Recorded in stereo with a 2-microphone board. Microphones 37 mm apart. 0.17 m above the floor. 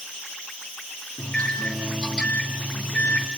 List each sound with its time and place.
1.2 s a microwave: 20° left (ahead or behind), 2.5 m